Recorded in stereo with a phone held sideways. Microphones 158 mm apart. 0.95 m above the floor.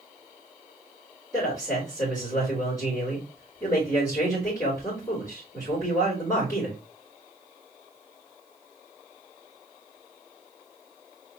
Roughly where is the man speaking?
Centre.